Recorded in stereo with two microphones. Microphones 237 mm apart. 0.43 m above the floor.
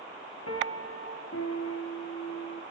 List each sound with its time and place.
0.5 s a piano: 80° left, 2 m